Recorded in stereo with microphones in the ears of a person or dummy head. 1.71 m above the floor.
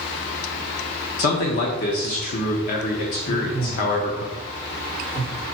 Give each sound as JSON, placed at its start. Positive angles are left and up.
{"t": 1.2, "sound": "a man speaking", "side_deg": 45, "distance_m": 1.0}
{"t": 3.2, "sound": "a man speaking", "side_deg": 85, "distance_m": 3.5}